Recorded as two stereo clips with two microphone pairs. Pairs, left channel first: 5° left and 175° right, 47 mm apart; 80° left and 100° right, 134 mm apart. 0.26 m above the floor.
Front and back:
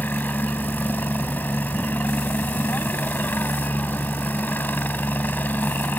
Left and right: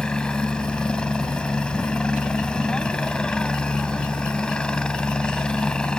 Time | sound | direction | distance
0.0 | a helicopter | straight ahead | ?